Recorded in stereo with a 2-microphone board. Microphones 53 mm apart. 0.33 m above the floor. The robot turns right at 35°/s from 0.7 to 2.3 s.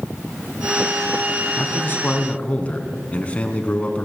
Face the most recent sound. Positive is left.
turn(degrees=25)  # may be behind; listen again after turning